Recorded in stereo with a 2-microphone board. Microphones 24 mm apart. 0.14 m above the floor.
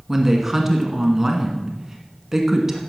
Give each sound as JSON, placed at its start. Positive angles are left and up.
{"t": 0.1, "sound": "a woman speaking", "side_deg": -15, "distance_m": 1.3}